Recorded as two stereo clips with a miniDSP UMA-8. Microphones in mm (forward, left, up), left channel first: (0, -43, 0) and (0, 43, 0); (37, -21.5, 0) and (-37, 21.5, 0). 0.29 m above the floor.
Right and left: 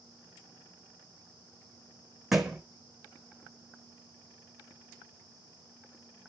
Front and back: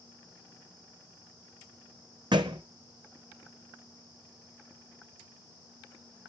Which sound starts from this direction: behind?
A thud, at 2.3 s.